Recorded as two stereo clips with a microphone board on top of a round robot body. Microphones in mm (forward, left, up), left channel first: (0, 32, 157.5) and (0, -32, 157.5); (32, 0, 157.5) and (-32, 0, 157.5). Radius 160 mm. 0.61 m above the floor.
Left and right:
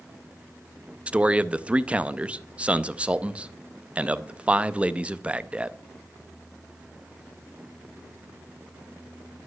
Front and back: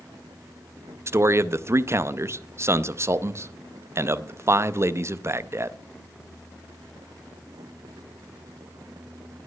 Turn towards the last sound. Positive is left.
turn(degrees=-155)